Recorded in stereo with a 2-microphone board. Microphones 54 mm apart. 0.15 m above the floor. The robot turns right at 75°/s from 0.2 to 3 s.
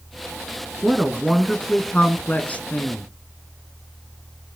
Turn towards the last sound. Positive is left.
turn(degrees=120)